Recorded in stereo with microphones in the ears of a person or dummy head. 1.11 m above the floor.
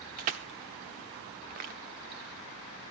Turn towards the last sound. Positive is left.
turn(degrees=-30)  # may be behind; listen again after turning